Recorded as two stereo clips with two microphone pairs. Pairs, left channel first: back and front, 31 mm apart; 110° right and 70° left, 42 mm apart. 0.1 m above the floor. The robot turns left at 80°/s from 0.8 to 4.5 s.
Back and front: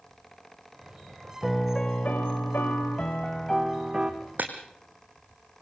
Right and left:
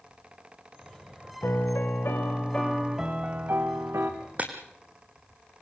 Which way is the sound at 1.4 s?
90° right.